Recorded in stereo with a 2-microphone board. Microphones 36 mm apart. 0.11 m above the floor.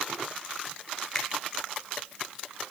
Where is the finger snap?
10° left (ahead or behind), 1.5 m.